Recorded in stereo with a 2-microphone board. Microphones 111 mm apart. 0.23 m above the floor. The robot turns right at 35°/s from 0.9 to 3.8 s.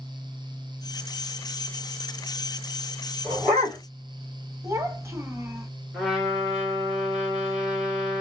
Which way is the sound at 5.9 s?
5° right (ahead or behind).